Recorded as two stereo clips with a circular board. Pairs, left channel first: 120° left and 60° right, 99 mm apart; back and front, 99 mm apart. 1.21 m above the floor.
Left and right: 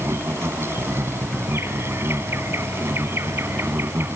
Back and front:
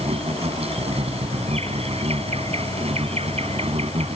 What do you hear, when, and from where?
0.0 s an insect: 5° left